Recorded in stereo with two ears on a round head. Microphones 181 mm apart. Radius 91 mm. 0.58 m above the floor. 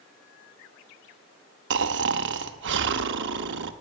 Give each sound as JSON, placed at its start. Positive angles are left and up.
{"t": 1.7, "sound": "snoring", "side_deg": -60, "distance_m": 0.8}